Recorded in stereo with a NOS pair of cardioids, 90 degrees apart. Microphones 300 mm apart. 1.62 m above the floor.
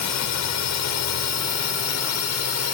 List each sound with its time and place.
0.0 s a drone: 70° left; by 2.8 s 55° left